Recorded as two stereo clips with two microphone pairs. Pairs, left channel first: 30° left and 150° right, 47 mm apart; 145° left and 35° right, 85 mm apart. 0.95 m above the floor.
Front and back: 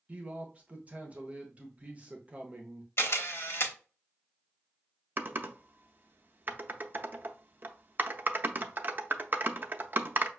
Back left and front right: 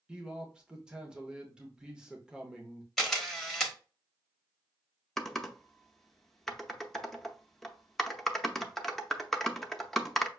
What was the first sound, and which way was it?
A man speaking, 110° right.